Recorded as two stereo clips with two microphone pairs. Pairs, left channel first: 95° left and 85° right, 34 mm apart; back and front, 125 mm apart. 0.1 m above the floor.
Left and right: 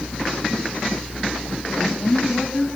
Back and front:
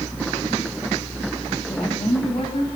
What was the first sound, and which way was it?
A woman speaking, 165° left.